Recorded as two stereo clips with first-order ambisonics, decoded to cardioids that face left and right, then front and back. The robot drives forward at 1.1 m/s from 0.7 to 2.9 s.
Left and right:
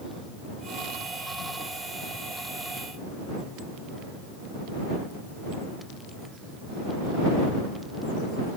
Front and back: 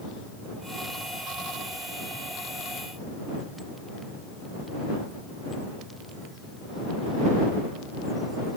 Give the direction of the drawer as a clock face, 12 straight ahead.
No drawer in this recording.